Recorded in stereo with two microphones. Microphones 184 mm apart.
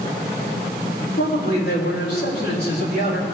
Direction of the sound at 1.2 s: 60° left (ahead or behind).